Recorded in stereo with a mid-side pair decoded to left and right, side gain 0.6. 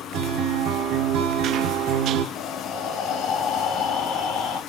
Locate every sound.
0.1 s a guitar: 65° right, 0.7 m
2.4 s breathing: 60° left, 1.7 m